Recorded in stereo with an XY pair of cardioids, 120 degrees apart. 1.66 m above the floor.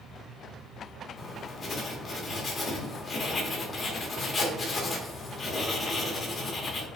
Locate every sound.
0.0 s a fan: 45° right, 0.8 m
1.2 s writing: 35° left, 1.0 m